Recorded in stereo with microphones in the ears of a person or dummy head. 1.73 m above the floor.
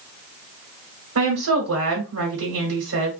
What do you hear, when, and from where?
1.1 s a woman speaking: 80° right, 1.4 m